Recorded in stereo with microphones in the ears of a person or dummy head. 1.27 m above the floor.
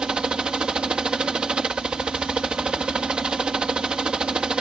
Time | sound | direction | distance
0.0 | a helicopter | centre (ahead or behind) | ?